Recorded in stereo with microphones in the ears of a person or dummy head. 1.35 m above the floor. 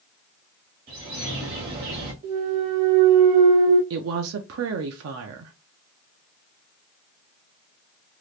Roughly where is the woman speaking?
Right.